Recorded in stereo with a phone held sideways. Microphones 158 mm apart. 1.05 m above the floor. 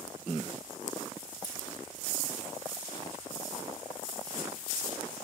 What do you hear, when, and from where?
1.4 s scissors: 25° left (ahead or behind), 1.2 m